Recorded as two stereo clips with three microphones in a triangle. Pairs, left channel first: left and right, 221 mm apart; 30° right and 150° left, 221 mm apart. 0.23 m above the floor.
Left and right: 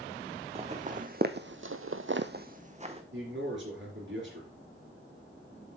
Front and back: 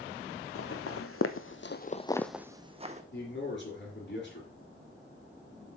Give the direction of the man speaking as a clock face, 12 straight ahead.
2 o'clock.